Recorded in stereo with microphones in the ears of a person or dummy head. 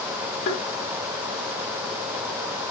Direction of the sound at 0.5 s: 45° left (ahead or behind).